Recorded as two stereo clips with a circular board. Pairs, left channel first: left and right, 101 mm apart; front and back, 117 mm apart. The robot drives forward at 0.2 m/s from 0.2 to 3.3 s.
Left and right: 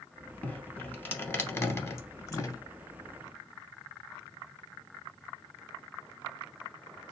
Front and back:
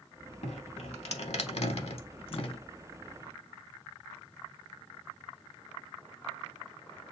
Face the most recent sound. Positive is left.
turn(degrees=50)